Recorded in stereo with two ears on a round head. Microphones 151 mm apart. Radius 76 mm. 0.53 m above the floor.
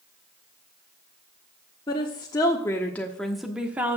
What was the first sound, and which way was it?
A woman speaking, 25° left (ahead or behind).